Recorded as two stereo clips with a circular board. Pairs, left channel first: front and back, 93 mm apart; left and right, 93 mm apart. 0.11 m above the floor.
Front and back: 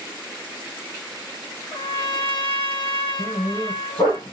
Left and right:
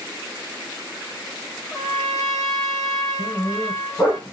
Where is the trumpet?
Straight ahead, 2 m.